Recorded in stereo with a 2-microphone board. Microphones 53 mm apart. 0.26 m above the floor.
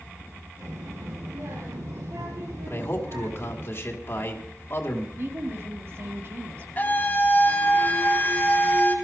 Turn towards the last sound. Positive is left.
turn(degrees=35)  # may be behind; listen again after turning